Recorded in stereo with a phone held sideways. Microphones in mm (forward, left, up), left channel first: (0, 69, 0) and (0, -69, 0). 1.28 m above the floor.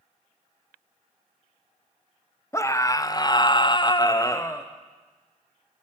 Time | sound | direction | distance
2.5 | a scream | 20° left (ahead or behind) | 0.9 m